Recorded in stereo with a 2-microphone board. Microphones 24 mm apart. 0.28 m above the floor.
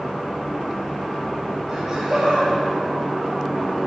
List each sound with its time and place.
1.7 s laughter: 25° right (ahead or behind), 8.5 m; by 3.7 s 30° right (ahead or behind), 7 m